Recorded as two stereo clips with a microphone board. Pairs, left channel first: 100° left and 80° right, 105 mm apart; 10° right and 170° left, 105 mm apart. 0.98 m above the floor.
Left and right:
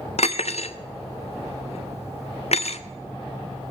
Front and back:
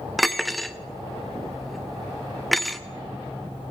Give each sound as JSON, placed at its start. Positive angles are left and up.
{"t": 0.2, "sound": "cutlery clinking", "azimuth_deg": 80, "distance_m": 0.6}